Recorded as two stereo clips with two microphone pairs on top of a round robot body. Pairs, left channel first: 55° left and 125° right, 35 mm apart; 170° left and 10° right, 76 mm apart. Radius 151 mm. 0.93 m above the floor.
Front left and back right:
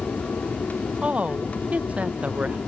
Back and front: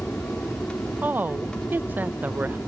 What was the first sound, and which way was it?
An aircraft, 95° left.